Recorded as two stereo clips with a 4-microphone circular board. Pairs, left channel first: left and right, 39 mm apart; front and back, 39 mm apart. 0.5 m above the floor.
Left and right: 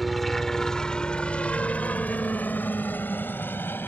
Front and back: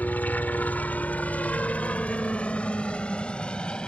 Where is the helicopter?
Straight ahead; by 3.9 s 70° left.